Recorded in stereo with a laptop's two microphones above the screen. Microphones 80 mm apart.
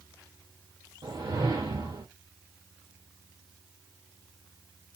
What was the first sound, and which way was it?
A whoosh, 65° right (ahead or behind).